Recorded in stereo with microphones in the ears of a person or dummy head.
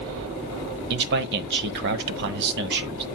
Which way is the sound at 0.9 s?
60° right (ahead or behind).